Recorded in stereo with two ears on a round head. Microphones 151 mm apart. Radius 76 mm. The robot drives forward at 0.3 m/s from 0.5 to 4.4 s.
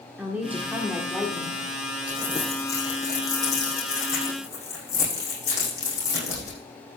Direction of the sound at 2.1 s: 20° left (ahead or behind).